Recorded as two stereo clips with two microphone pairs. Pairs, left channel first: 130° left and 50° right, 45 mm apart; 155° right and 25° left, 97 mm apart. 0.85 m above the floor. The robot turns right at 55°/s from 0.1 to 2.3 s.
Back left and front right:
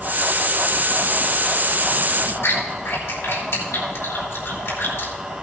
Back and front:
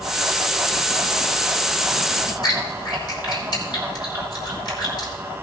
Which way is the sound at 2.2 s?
155° left.